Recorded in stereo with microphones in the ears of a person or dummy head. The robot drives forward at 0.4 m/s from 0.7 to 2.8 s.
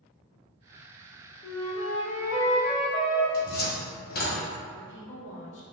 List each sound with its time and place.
1.4 s a flute: 30° left (ahead or behind), 0.6 m
3.3 s a cupboard door: 50° left (ahead or behind), 0.6 m
4.7 s a woman speaking: 65° left (ahead or behind), 0.9 m